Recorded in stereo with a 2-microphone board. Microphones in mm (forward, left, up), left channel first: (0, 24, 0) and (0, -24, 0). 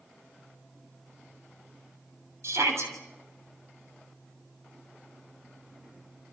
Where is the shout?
70° right (ahead or behind), 7 m.